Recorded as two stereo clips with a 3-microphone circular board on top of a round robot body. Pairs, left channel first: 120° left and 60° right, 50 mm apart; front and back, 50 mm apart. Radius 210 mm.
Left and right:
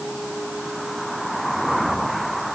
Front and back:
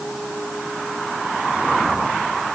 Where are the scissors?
No scissors in this recording.